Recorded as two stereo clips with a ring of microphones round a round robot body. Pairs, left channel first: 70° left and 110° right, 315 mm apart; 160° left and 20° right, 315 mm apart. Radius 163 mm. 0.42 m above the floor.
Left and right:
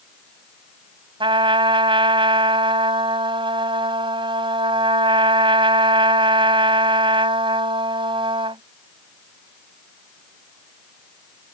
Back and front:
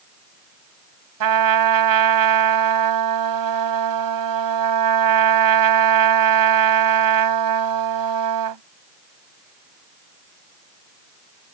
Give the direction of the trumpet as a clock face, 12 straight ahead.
1 o'clock.